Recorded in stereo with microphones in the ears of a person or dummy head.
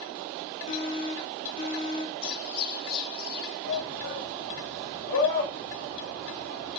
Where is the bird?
50° left (ahead or behind), 4.5 m.